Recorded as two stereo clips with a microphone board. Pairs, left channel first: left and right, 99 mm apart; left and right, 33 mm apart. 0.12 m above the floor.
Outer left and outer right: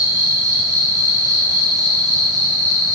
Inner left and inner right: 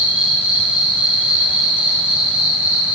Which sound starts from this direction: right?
An insect, at 0.0 s.